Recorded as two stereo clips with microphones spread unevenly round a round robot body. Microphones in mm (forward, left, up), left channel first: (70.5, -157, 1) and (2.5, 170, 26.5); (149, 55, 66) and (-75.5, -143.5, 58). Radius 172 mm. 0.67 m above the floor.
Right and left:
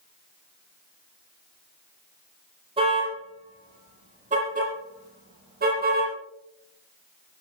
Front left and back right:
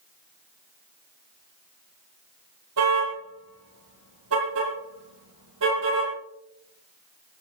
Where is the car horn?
175° left, 9.5 m; by 6.1 s 165° left, 10 m.